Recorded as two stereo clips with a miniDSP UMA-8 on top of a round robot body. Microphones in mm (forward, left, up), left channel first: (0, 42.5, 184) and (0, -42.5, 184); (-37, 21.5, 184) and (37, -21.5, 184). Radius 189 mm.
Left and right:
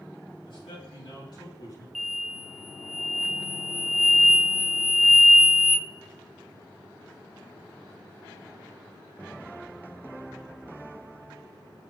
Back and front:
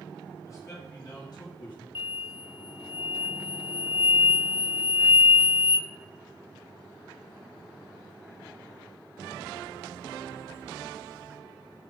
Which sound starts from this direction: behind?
An explosion, at 1.9 s.